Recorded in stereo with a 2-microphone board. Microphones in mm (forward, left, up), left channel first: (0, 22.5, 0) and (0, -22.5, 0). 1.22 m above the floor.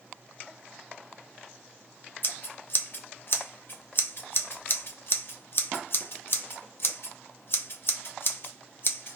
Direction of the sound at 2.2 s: 50° left (ahead or behind).